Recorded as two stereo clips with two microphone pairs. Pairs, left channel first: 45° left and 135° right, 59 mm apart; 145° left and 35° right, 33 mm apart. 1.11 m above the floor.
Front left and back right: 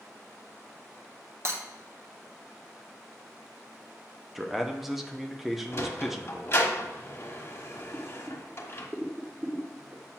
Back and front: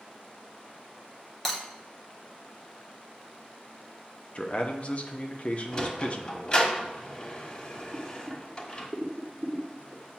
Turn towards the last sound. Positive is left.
turn(degrees=-75)